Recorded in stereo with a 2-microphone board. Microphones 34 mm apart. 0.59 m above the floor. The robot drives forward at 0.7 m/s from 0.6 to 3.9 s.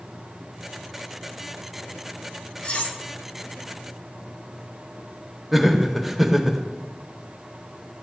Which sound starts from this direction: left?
Cutlery clinking, at 2.6 s.